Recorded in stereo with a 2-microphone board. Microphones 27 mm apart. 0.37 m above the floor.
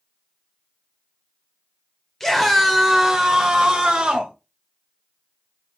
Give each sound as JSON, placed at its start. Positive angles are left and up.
{"t": 2.2, "sound": "a scream", "side_deg": 15, "distance_m": 1.5}